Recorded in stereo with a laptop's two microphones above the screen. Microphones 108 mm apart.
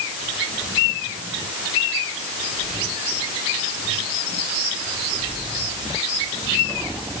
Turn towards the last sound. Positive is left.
No sound to turn to.